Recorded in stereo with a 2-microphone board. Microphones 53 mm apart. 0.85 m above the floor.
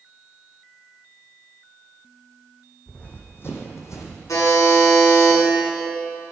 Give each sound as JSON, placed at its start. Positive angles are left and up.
{"t": 2.9, "sound": "running footsteps", "side_deg": 30, "distance_m": 2.5}
{"t": 4.3, "sound": "a buzzer", "side_deg": 90, "distance_m": 5.5}